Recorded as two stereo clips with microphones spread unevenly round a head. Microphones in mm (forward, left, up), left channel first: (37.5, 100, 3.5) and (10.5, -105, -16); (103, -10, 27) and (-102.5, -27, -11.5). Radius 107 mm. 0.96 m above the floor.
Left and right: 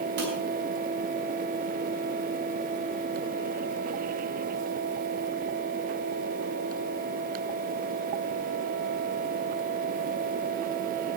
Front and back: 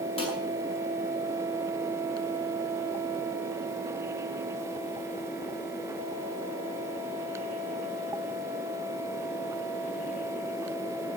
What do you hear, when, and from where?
0.2 s dishes clattering: 60° right, 9 m